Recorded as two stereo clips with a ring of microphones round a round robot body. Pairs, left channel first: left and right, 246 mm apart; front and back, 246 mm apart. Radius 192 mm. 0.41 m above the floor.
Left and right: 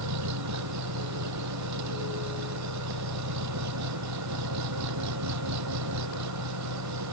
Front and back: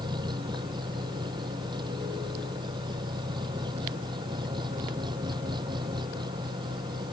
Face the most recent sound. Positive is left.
turn(degrees=-100)